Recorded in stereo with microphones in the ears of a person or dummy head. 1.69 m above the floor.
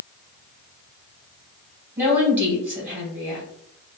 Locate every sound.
2.0 s a woman speaking: 10° right (ahead or behind), 1.9 m